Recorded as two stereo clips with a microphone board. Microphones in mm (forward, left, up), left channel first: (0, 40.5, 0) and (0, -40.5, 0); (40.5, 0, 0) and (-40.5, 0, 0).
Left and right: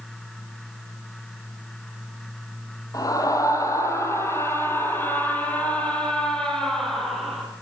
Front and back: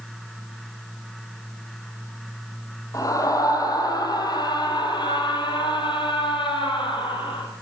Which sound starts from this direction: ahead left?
A scream, at 2.9 s.